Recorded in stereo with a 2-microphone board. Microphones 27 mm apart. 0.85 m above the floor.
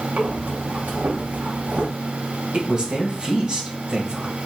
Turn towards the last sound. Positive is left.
turn(degrees=-35)  # may be behind; listen again after turning